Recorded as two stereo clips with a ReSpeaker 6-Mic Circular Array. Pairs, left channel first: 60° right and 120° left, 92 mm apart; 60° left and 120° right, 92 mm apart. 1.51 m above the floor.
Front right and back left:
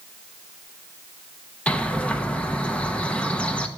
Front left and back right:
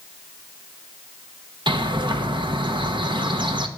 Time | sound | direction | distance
1.7 | a bird | 135° right | 0.9 m